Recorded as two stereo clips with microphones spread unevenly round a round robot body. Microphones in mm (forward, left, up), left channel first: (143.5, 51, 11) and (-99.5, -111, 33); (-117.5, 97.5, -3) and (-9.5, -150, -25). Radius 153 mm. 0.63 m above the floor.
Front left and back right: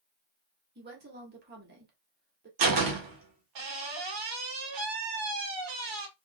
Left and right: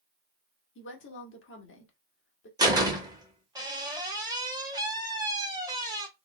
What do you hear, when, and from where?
0.8 s a woman speaking: 155° left, 1.6 m
2.6 s a door slam: 140° right, 1.7 m